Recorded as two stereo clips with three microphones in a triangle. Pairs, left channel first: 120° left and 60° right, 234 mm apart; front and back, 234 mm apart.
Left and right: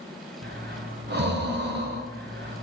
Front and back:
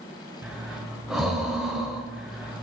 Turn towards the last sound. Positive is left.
turn(degrees=-90)